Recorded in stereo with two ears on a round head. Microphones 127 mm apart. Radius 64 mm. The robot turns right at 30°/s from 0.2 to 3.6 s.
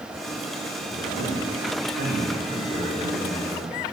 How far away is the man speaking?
About 2.5 m.